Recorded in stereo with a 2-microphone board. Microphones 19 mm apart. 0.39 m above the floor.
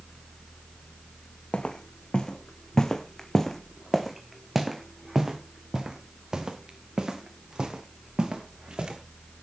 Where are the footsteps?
55° left (ahead or behind), 1.9 m; by 9.0 s 45° right (ahead or behind), 4.5 m.